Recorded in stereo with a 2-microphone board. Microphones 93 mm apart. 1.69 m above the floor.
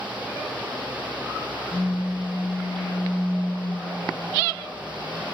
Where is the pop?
25° left (ahead or behind), 0.6 m.